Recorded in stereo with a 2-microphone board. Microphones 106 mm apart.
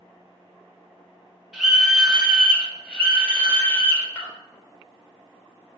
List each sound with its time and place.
1.5 s a scream: 5° right (ahead or behind), 2.5 m; by 4.3 s 25° left (ahead or behind), 2 m